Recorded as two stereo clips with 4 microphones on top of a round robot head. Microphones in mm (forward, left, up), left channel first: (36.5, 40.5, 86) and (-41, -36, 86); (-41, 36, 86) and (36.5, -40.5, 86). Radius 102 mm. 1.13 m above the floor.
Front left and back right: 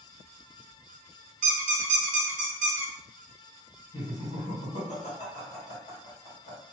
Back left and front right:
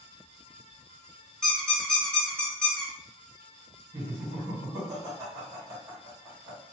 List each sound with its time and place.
1.4 s a squeak: 145° right, 1.0 m
3.9 s laughter: 25° left, 2.0 m